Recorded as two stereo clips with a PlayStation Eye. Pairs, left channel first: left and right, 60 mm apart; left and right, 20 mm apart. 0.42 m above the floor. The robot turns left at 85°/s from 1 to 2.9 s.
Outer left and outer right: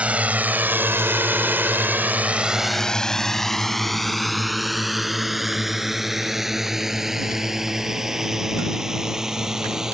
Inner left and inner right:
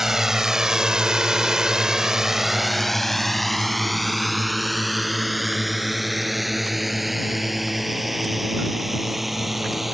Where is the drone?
20° right (ahead or behind); by 9.9 s 10° right (ahead or behind).